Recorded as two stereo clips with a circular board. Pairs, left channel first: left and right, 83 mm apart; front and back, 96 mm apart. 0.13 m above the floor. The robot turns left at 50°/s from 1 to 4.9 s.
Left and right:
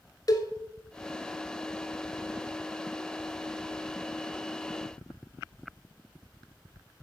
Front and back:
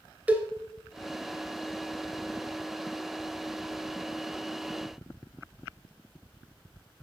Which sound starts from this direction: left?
A cowbell, at 0.3 s.